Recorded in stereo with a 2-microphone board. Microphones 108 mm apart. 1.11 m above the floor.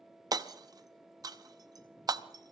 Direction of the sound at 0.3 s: 40° right (ahead or behind).